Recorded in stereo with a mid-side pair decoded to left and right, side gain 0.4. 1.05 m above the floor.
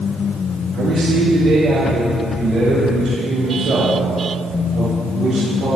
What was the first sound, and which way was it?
A man speaking, 60° right.